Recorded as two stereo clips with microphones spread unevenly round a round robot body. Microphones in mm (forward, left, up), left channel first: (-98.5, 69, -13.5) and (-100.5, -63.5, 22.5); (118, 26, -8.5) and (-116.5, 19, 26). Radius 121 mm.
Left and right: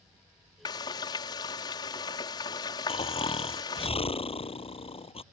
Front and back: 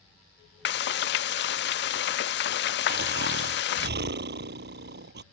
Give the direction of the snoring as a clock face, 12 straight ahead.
7 o'clock.